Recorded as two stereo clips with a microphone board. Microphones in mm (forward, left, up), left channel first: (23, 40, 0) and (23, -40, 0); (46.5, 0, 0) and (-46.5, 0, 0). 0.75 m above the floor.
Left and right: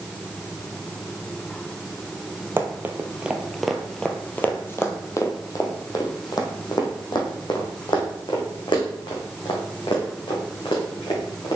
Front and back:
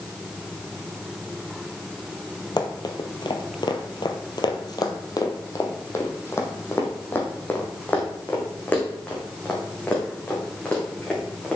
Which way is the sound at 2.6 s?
35° right.